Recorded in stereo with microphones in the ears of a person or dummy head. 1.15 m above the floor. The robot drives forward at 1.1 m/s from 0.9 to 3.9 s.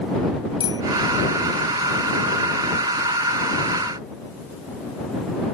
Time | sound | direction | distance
0.6 | a bicycle bell | 25° left (ahead or behind) | ?